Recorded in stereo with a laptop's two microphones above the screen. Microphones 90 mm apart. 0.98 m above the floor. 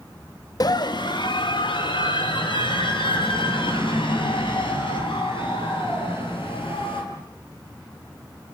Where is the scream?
50° left (ahead or behind), 1.1 m; by 7.0 s 85° left, 11 m.